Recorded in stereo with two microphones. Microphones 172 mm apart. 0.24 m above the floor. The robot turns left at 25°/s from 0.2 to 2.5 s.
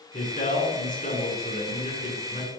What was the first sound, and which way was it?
A man speaking, 130° left.